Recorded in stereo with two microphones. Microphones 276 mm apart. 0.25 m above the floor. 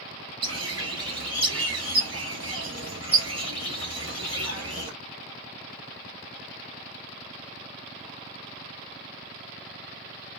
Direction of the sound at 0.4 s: 60° right (ahead or behind).